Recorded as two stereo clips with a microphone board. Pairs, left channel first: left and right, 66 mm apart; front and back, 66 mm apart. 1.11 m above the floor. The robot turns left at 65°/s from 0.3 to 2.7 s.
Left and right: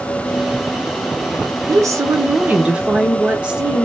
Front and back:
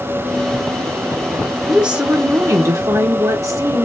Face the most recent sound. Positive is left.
turn(degrees=-160)